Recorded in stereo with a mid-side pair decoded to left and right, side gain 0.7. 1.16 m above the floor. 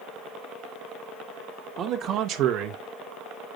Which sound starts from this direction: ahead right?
A man speaking, at 1.8 s.